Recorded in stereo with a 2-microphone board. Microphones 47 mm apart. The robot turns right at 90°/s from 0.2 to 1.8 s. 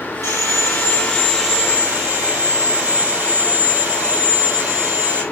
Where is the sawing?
85° left, 6.5 m; by 5.2 s 135° right, 6.5 m.